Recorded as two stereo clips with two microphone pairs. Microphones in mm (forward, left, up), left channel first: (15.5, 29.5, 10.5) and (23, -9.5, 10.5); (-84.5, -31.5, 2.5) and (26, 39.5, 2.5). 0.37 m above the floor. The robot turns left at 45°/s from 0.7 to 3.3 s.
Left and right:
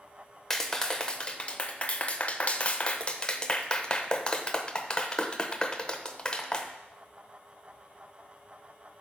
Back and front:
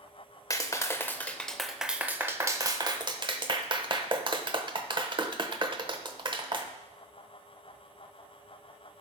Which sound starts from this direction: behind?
A clap, at 0.5 s.